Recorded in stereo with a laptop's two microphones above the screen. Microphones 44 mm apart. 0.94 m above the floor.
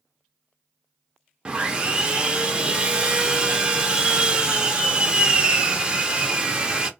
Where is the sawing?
25° right (ahead or behind), 0.5 m.